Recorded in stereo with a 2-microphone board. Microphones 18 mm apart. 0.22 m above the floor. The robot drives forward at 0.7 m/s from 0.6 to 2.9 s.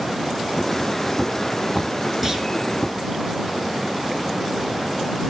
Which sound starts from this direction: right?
A clunk, at 2.2 s.